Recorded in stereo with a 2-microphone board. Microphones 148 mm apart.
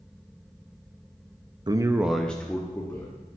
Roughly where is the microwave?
No microwave in this recording.